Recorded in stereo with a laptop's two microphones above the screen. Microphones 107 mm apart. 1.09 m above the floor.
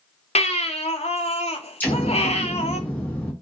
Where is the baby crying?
80° left, 0.5 m.